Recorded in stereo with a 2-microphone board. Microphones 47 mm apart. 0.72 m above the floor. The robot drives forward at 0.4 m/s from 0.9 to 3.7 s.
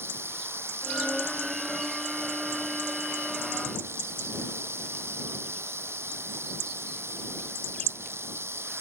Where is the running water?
60° right (ahead or behind); by 8.8 s 65° right (ahead or behind).